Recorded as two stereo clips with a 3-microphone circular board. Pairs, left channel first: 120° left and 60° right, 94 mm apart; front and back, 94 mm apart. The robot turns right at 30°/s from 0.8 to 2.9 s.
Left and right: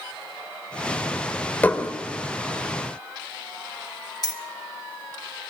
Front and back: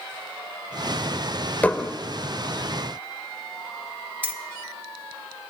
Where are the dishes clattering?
60° left, 0.6 m; by 1.9 s 70° left, 0.6 m.